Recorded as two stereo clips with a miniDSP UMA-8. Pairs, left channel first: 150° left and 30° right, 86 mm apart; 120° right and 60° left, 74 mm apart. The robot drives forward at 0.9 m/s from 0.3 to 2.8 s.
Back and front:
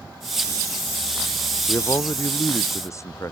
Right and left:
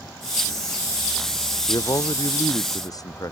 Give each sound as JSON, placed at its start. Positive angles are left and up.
{"t": 1.7, "sound": "a man speaking", "azimuth_deg": -150}